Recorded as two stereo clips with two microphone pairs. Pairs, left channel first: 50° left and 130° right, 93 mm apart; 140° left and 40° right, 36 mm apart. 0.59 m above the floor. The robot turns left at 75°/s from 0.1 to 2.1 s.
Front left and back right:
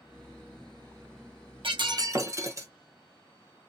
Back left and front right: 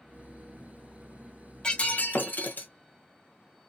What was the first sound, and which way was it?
Breaking glass, 150° right.